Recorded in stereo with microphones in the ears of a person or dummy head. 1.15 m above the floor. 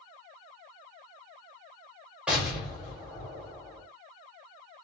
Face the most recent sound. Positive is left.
turn(degrees=-5)  # may be behind; listen again after turning